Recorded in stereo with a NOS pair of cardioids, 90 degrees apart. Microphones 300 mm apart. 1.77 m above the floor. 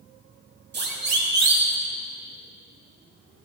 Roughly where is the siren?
Ahead right.